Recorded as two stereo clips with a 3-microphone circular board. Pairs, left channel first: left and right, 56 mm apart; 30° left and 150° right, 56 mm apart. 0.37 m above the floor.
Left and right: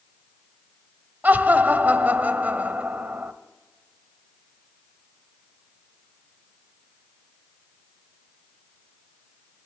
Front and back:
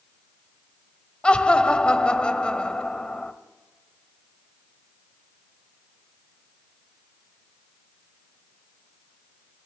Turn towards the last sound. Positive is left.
turn(degrees=-35)